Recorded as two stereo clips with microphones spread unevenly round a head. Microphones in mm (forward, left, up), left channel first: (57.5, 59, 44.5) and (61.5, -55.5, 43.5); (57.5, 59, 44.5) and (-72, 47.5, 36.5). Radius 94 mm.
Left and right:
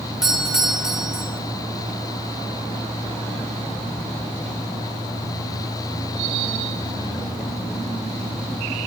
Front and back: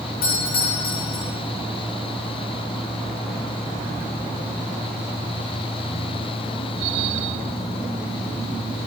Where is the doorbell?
5° right, 9 m.